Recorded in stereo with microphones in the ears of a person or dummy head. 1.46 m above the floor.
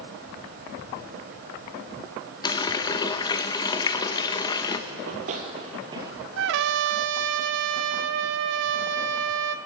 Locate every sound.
2.4 s a running tap: 20° left (ahead or behind), 1.0 m
4.9 s running footsteps: 50° right (ahead or behind), 2.5 m; by 6.3 s 10° right (ahead or behind), 1.8 m
6.4 s a trumpet: 65° right (ahead or behind), 0.8 m